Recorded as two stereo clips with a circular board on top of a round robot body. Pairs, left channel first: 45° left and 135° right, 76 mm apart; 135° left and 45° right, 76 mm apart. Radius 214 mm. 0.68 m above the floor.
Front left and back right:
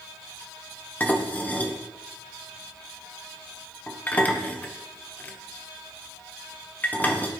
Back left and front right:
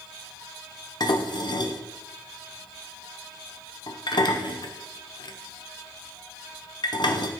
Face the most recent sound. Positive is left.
turn(degrees=115)